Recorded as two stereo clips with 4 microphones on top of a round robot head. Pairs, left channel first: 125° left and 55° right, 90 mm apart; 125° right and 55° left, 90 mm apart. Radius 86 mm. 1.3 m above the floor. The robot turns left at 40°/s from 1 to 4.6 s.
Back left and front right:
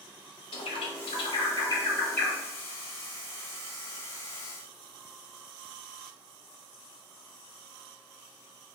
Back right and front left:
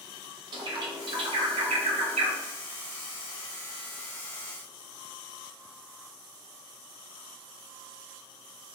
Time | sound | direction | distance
0.5 | a bird | 95° left | 1.0 m